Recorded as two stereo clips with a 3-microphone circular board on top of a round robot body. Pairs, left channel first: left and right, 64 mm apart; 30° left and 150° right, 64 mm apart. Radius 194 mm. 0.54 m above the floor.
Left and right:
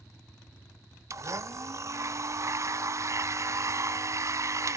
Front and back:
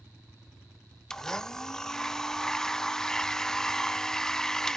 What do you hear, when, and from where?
1.1 s a blender: 50° right, 0.6 m